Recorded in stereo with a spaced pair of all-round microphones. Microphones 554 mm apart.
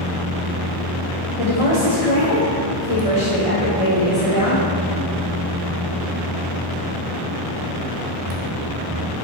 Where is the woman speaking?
75° left (ahead or behind), 1.7 m.